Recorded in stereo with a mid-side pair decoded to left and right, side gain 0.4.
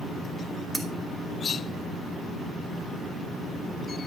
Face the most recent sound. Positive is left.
turn(degrees=-15)